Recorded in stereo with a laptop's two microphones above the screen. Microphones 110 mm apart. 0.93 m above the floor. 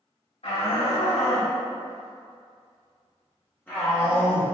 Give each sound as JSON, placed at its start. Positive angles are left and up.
{"t": 0.4, "sound": "a shout", "side_deg": 85, "distance_m": 1.9}